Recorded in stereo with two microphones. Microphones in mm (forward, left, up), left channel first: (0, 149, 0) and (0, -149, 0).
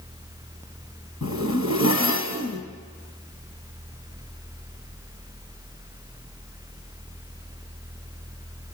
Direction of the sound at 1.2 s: 65° left (ahead or behind).